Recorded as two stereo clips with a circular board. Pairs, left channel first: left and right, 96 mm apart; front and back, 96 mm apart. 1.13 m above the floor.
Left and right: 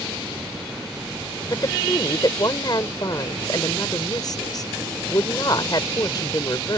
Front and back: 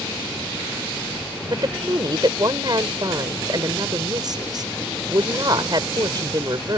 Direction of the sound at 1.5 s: 135° left.